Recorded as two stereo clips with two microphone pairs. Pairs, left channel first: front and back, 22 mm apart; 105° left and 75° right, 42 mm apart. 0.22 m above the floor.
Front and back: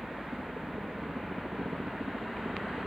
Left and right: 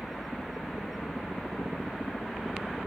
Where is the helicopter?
170° right.